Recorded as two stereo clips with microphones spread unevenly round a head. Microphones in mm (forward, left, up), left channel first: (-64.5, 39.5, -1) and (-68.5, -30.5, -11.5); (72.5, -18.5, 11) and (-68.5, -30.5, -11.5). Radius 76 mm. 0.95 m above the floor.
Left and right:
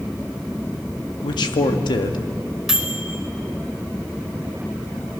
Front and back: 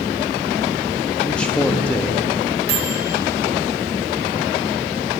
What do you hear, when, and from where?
1.2 s a man speaking: 90° left, 1.8 m
2.7 s a microwave: straight behind, 3 m